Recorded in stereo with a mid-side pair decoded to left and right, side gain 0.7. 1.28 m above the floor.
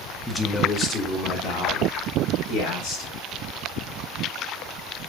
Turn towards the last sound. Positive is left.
turn(degrees=70)